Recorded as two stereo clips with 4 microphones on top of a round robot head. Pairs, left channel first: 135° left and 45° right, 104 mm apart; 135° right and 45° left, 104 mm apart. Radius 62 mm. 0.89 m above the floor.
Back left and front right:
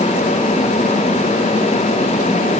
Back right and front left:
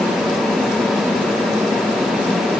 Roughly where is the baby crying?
I don't hear a baby crying.